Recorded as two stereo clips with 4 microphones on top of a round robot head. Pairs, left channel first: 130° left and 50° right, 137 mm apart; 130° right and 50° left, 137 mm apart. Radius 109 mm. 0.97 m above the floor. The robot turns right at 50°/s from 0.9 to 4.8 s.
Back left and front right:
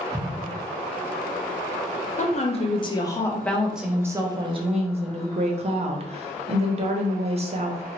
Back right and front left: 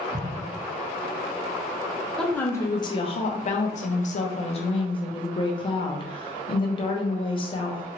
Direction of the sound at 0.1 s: 45° left.